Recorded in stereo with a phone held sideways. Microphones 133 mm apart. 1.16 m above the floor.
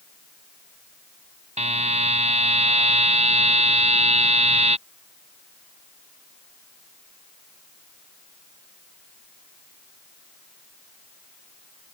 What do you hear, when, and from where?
1.6 s a buzzer: 55° right (ahead or behind)